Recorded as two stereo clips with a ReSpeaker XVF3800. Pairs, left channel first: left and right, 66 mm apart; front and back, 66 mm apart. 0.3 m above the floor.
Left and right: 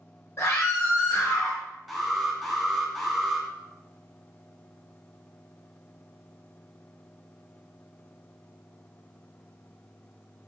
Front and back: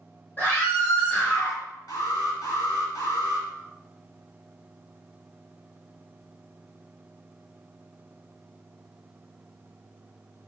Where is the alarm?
Straight ahead, 1.9 m.